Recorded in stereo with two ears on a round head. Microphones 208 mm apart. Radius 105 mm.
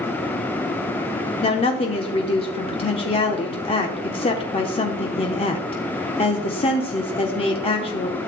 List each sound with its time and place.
1.4 s a woman speaking: 25° left (ahead or behind), 0.8 m